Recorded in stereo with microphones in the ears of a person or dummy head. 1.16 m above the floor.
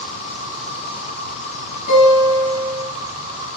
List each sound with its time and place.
0.0 s an insect: 55° left (ahead or behind), 8.5 m
1.9 s a guitar: 45° left (ahead or behind), 8 m